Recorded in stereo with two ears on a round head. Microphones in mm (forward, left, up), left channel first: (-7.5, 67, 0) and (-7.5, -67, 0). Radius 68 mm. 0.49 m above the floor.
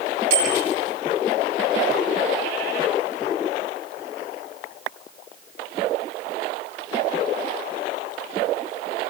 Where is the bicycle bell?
75° right (ahead or behind), 10 m.